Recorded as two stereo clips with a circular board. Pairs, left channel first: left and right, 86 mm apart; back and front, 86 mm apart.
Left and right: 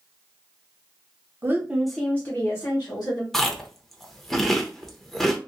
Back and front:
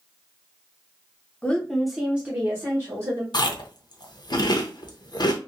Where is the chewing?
175° left, 0.5 m.